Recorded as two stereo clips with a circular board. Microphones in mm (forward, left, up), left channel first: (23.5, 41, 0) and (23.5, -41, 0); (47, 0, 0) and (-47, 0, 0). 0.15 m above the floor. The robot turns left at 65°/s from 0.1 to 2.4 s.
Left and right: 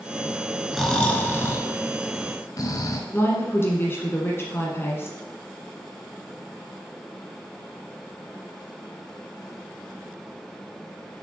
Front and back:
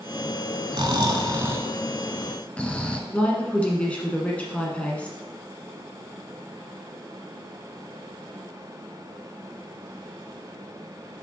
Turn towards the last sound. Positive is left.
turn(degrees=65)